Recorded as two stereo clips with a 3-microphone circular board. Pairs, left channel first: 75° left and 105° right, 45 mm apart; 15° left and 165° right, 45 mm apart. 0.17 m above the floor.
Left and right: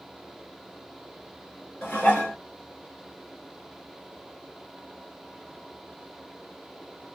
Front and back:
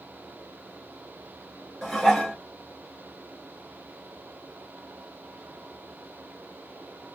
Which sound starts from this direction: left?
Dishes clattering, at 1.8 s.